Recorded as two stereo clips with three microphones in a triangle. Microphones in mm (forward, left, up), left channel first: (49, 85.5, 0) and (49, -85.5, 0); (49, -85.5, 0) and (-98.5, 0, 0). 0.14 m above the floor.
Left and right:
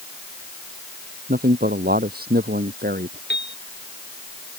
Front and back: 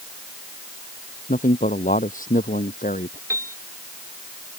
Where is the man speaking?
65° right; by 3.2 s 70° right.